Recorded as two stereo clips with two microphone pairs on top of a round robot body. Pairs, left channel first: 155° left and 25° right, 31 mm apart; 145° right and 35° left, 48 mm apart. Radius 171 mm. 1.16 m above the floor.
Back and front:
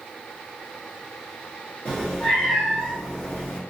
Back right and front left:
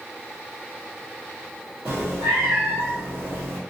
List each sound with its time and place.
1.9 s a cat meowing: 100° left, 0.8 m